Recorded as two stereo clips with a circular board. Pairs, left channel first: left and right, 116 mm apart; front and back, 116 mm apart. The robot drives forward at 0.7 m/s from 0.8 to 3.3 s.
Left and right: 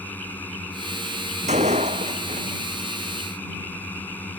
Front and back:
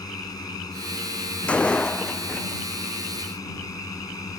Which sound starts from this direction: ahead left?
A drone, at 0.0 s.